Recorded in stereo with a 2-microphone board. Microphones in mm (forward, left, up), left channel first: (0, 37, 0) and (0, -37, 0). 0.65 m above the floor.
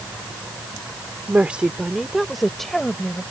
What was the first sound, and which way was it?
A woman speaking, 20° right (ahead or behind).